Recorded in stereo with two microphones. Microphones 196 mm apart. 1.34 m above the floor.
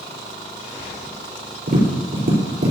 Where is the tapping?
60° right (ahead or behind), 4.5 m.